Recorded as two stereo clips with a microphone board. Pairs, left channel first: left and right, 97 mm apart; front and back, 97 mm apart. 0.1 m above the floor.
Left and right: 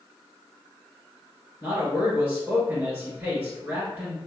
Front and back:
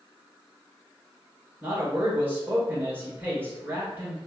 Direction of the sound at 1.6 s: 135° right.